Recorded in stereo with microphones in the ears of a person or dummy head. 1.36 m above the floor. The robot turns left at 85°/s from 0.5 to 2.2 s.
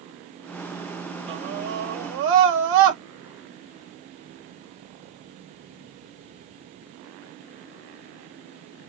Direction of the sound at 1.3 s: 30° right.